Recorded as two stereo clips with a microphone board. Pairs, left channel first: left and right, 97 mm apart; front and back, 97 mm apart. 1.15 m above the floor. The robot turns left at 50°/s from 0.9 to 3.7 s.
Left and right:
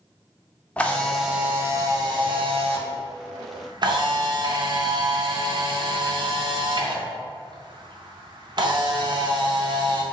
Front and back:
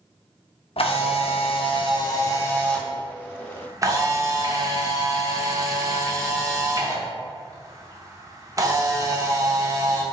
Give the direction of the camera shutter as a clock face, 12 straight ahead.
12 o'clock.